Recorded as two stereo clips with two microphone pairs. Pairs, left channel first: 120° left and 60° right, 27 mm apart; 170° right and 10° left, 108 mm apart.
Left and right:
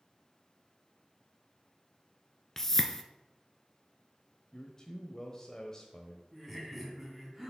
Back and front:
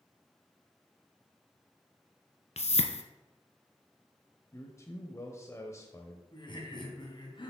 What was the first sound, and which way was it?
A whoosh, 165° right.